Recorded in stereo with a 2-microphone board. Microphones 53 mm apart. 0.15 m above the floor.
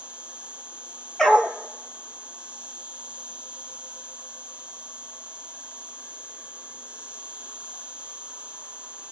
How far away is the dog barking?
About 0.8 m.